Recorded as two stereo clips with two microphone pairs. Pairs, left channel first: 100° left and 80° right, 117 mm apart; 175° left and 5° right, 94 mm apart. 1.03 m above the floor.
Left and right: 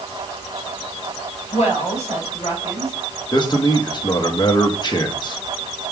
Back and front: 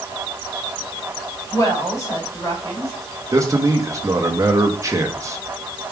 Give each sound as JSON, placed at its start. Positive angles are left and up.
{"t": 1.5, "sound": "a woman speaking", "azimuth_deg": 125, "distance_m": 4.0}
{"t": 3.3, "sound": "a man speaking", "azimuth_deg": 50, "distance_m": 1.5}